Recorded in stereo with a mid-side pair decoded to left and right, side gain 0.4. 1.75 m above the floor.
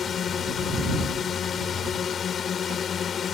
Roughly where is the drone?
Ahead left.